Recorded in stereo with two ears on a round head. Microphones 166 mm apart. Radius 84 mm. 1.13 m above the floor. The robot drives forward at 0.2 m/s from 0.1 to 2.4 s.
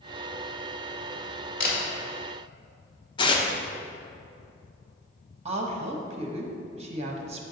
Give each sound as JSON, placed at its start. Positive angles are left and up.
{"t": 1.6, "sound": "a camera shutter", "side_deg": 55, "distance_m": 1.8}
{"t": 3.2, "sound": "tearing paper", "side_deg": 25, "distance_m": 0.7}
{"t": 5.5, "sound": "a woman speaking", "side_deg": -35, "distance_m": 1.1}